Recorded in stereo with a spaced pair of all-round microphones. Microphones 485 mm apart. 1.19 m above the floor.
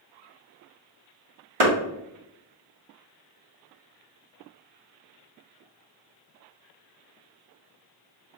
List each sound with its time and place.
1.6 s a clap: 85° right, 1.4 m